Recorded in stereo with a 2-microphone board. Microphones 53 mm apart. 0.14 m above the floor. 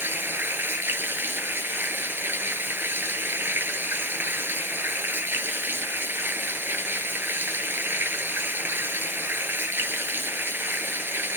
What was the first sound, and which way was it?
Running water, 45° right (ahead or behind).